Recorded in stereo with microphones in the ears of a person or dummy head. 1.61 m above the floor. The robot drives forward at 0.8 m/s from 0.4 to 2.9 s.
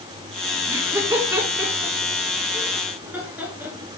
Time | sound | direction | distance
0.7 | laughter | 15° right (ahead or behind) | 2.5 m